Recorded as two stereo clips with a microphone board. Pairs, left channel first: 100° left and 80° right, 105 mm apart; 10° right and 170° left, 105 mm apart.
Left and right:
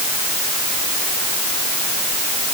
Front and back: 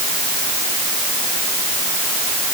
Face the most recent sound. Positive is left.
No sound to turn to.